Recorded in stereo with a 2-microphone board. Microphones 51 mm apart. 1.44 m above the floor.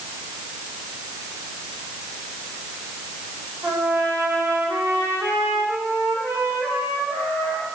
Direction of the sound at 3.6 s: 65° right (ahead or behind).